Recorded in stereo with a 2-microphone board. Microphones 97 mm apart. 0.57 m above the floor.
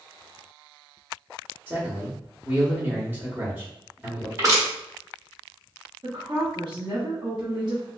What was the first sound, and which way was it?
A man speaking, 20° right (ahead or behind).